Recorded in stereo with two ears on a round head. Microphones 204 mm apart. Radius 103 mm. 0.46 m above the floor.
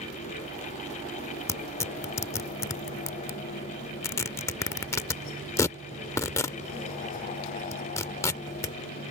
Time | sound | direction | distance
1.5 | tearing paper | 15° left (ahead or behind) | ?